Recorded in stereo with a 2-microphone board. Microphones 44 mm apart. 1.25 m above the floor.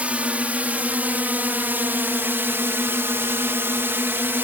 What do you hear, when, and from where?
0.0 s a drone: 30° right (ahead or behind); by 4.4 s 55° right (ahead or behind)